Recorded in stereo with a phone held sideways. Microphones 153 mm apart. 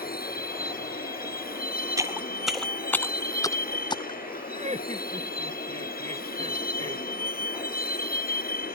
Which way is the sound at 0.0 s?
75° left (ahead or behind).